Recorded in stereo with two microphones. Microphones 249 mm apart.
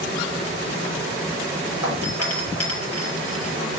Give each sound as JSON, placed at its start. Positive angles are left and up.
{"t": 1.8, "sound": "a doorbell", "side_deg": 70, "distance_m": 6.5}